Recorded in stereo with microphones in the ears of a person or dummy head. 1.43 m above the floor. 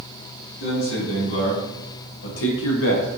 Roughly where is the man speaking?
Left.